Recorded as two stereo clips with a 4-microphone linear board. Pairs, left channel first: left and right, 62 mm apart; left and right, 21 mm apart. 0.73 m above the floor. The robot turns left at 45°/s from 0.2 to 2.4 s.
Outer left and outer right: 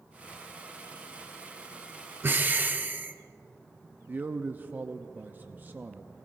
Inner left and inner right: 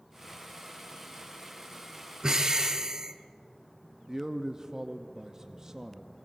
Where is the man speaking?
35° right (ahead or behind), 0.6 m.